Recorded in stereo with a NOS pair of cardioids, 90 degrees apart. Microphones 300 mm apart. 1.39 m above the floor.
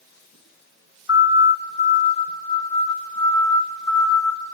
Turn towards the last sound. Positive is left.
turn(degrees=0)